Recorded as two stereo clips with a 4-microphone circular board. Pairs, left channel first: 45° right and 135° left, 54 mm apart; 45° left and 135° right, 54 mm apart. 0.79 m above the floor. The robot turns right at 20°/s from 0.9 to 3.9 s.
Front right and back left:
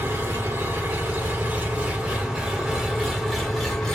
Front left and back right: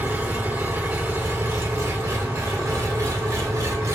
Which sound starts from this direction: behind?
An engine running, at 0.0 s.